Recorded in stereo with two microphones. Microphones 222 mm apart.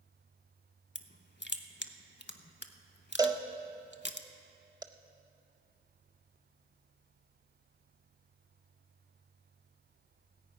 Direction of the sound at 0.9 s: 55° left (ahead or behind).